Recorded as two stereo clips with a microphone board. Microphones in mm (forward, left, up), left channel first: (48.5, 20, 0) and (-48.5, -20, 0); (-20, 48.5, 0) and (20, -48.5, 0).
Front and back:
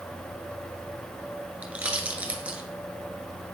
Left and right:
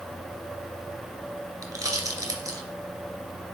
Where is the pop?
90° right, 1.7 m.